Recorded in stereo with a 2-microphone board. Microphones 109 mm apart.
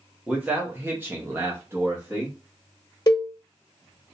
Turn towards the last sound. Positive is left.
turn(degrees=40)  # may be behind; listen again after turning